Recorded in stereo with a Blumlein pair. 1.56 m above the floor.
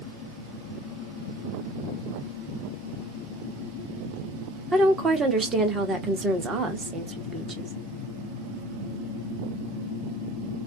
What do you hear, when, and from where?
4.7 s a woman speaking: 20° right, 0.9 m